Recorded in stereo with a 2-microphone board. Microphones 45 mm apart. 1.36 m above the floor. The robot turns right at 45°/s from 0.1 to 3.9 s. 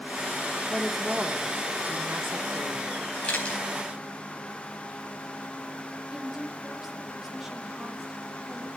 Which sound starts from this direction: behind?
A woman speaking, at 0.7 s.